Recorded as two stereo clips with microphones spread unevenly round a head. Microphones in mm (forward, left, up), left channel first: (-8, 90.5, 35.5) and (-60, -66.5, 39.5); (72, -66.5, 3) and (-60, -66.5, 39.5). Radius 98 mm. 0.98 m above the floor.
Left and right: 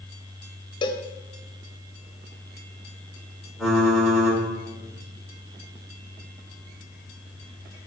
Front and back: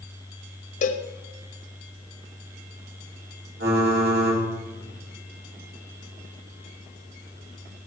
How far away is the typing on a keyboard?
About 4 m.